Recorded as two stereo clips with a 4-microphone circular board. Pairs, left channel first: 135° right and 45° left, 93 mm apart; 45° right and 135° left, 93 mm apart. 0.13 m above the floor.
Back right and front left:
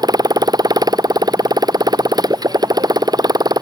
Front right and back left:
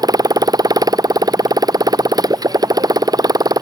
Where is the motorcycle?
90° left.